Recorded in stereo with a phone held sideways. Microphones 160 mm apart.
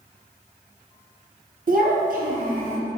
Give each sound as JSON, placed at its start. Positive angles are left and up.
{"t": 1.7, "sound": "a child speaking", "side_deg": -60, "distance_m": 0.6}